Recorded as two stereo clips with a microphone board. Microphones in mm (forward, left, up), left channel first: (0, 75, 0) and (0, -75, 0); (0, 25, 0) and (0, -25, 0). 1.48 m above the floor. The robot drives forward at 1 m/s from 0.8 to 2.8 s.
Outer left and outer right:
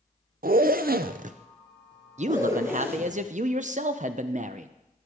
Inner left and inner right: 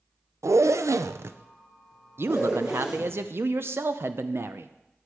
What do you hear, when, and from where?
0.4 s a zipper: 75° right (ahead or behind), 0.5 m; by 3.2 s 15° right (ahead or behind), 1.9 m
2.2 s a man speaking: 50° right (ahead or behind), 0.7 m; by 4.7 s 55° right (ahead or behind), 0.6 m